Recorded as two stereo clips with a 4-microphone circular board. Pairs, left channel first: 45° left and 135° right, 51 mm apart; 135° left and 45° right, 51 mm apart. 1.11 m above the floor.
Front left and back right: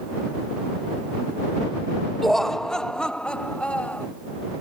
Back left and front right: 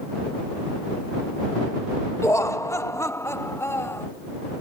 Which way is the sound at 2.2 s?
130° left.